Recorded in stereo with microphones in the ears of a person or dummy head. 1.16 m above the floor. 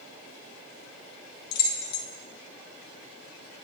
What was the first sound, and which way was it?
Keys jangling, 55° left (ahead or behind).